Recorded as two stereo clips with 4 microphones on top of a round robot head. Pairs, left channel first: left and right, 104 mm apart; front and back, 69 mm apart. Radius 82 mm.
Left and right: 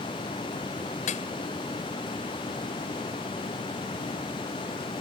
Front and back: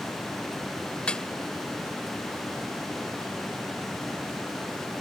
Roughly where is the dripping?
Left.